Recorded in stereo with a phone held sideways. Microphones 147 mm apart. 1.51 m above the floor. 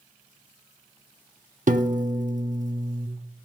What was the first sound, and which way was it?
A piano, 60° right (ahead or behind).